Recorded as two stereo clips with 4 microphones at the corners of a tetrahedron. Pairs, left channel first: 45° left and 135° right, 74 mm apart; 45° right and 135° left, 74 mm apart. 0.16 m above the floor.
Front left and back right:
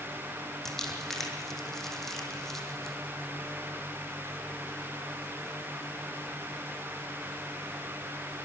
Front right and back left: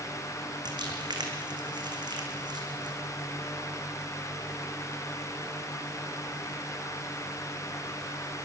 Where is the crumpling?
130° left, 3 m.